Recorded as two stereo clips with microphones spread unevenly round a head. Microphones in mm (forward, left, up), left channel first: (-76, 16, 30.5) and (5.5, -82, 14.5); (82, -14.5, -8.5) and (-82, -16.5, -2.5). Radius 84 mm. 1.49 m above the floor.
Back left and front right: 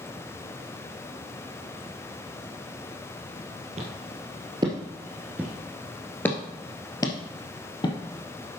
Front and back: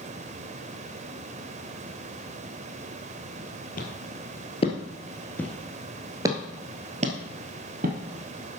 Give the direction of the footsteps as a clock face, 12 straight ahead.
12 o'clock.